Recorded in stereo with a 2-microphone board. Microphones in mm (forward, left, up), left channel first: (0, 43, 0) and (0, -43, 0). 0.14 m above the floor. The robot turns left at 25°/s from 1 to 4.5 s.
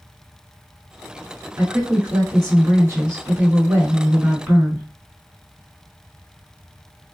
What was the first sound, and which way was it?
A woman speaking, 75° right.